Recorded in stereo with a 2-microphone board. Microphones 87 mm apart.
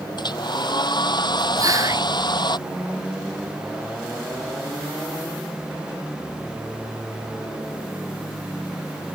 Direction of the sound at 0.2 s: 55° left (ahead or behind).